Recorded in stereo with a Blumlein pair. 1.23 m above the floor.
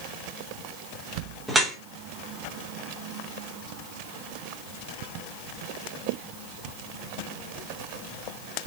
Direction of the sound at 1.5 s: 5° right.